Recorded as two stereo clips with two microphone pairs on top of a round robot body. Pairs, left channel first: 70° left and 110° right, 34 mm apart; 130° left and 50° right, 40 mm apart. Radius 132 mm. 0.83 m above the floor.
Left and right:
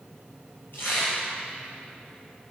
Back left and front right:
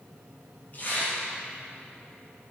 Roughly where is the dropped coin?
No dropped coin in this recording.